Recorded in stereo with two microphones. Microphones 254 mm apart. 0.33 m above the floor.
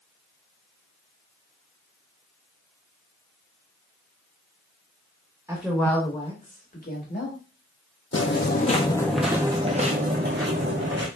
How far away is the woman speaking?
About 0.9 m.